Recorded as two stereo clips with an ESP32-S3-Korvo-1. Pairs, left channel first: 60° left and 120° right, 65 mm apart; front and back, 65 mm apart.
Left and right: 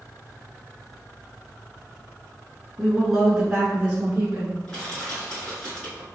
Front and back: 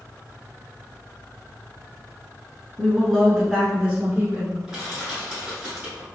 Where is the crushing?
115° left, 1.9 m.